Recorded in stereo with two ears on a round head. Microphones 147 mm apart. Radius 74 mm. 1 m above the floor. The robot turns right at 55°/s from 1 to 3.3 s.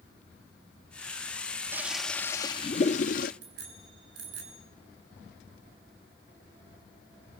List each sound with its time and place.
1.7 s a toilet flushing: 15° right, 0.6 m; by 3.3 s 70° left, 0.6 m
3.4 s a bicycle bell: 75° right (ahead or behind), 8 m